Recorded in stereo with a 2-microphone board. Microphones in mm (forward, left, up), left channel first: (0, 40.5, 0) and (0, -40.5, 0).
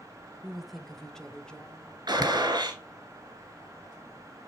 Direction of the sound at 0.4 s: 5° right (ahead or behind).